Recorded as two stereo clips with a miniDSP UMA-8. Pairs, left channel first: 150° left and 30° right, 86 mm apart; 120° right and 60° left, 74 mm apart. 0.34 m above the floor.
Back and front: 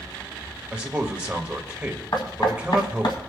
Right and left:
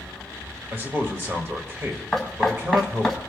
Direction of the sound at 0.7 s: 35° left.